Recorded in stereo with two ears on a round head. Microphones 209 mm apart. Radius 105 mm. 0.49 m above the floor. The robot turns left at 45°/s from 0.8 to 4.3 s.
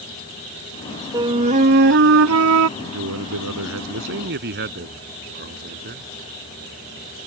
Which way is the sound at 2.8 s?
65° right.